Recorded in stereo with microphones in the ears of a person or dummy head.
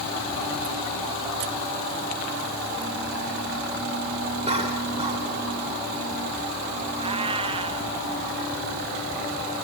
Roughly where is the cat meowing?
Right.